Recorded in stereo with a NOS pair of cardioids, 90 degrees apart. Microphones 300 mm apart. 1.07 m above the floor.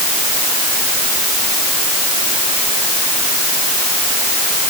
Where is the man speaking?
I don't hear a man speaking.